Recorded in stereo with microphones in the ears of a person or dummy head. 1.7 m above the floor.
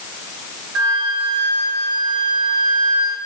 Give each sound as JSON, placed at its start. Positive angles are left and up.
{"t": 0.8, "sound": "a flute", "side_deg": -75, "distance_m": 0.7}